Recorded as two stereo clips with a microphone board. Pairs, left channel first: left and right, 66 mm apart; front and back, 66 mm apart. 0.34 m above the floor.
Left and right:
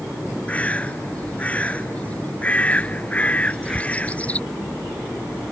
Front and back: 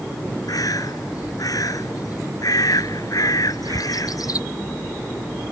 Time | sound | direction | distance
0.5 | a bird | 20° left | ?
3.4 | a crack | 175° right | ?